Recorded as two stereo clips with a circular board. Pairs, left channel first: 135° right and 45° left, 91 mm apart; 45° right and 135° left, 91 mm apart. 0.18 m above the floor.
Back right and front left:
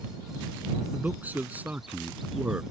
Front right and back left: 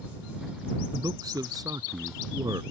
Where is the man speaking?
110° left.